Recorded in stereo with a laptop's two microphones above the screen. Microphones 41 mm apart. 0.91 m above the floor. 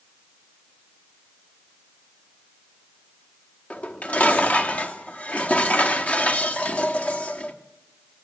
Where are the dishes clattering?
35° left (ahead or behind), 1.2 m.